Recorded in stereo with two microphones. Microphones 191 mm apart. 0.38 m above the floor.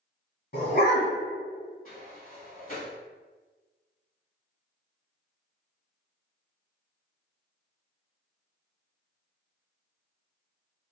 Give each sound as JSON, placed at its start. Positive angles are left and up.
{"t": 0.5, "sound": "a dog barking", "side_deg": 55, "distance_m": 1.4}
{"t": 1.9, "sound": "a sliding door", "side_deg": 50, "distance_m": 1.3}